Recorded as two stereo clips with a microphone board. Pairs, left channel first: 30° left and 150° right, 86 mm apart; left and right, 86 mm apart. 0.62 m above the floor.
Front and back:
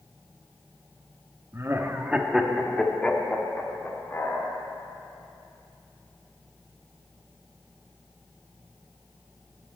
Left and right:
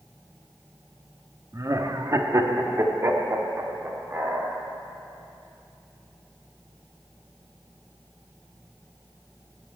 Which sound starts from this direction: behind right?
Laughter, at 1.5 s.